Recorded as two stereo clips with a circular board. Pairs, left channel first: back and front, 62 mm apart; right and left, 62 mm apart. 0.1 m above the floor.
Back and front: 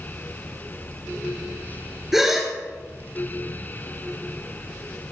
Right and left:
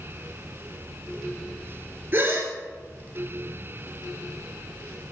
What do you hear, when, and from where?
2.1 s a gasp: 80° left, 1.7 m